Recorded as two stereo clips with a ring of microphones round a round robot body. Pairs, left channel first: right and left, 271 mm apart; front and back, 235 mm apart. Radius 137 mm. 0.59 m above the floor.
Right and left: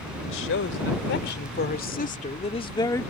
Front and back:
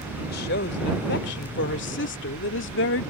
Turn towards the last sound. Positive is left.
turn(degrees=-10)